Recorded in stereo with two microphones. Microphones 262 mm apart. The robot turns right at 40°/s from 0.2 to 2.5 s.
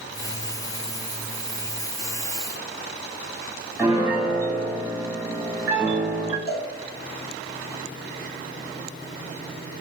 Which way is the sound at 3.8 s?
10° right (ahead or behind).